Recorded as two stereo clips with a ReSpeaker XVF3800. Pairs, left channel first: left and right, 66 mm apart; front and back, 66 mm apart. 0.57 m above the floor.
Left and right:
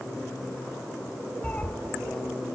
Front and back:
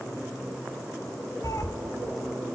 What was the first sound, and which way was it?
A cat meowing, 25° left.